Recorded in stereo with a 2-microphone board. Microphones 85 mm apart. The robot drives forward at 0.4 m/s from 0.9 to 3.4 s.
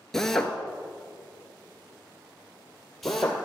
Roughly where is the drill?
Centre.